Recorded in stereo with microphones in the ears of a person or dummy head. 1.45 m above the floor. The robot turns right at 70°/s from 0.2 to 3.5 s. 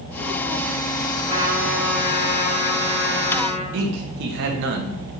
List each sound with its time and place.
1.3 s a trumpet: 35° right, 4.5 m; by 3.6 s 125° left, 4.5 m
3.7 s a man speaking: 70° right (ahead or behind), 1.4 m